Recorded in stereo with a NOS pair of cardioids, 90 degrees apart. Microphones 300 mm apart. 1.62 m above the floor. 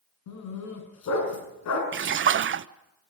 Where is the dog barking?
65° left, 6.5 m.